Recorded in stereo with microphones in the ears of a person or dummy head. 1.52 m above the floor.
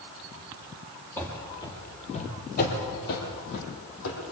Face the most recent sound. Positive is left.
turn(degrees=70)  # may be behind; listen again after turning